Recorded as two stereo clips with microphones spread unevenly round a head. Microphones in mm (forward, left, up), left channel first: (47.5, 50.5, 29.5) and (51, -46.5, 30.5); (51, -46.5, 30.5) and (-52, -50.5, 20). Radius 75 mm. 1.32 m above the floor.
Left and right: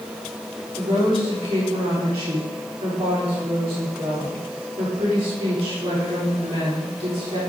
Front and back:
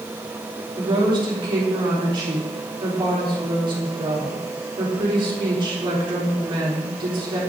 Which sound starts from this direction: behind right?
A woman speaking, at 0.8 s.